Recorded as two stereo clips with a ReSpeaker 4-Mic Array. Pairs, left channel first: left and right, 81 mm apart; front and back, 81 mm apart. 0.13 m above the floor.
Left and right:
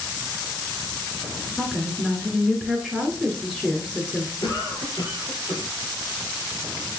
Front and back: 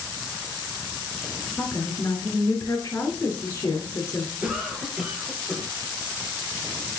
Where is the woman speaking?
15° left, 1.7 m.